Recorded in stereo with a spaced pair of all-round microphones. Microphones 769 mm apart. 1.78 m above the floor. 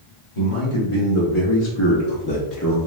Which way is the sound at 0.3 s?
40° left (ahead or behind).